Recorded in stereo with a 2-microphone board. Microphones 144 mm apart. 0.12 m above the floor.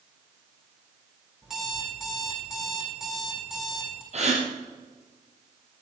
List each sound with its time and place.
1.4 s an alarm clock: 5° right (ahead or behind), 3 m
4.1 s a gasp: 50° right (ahead or behind), 4 m